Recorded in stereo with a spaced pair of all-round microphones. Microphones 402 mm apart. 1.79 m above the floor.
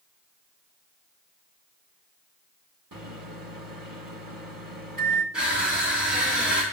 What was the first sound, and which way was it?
A microwave, 55° right (ahead or behind).